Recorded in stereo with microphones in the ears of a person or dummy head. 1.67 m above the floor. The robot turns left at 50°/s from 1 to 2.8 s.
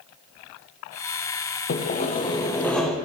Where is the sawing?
60° left, 0.9 m; by 3.0 s 5° left, 0.9 m.